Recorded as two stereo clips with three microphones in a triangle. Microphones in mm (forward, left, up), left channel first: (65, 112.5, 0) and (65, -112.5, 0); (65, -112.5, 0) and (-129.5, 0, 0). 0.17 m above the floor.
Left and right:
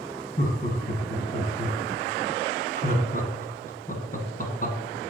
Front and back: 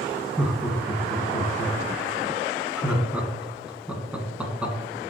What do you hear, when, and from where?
0.4 s laughter: 70° left, 1.7 m